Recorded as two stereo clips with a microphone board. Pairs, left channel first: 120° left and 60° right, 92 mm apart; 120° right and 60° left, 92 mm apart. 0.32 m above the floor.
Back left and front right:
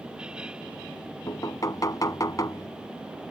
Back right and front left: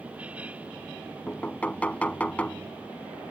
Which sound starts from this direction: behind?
Knocking, at 1.3 s.